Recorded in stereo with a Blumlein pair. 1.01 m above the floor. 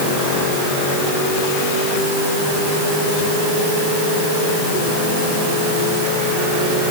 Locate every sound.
Only background noise.